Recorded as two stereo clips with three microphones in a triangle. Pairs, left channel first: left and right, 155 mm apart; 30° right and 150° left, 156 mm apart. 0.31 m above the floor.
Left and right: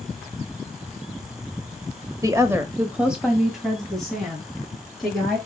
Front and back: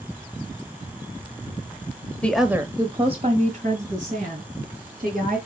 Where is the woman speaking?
95° right, 1.2 m; by 5.4 s 175° left, 5 m.